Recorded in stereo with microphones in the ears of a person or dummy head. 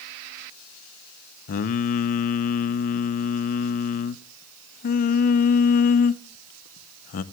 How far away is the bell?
No bell in this recording.